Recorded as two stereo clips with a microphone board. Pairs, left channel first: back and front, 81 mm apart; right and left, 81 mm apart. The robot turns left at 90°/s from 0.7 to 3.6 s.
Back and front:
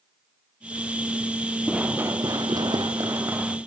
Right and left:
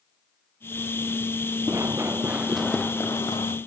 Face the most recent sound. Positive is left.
turn(degrees=-85)